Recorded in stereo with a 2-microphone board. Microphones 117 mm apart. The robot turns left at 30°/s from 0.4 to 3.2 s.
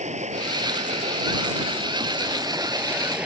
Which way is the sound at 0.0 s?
85° right.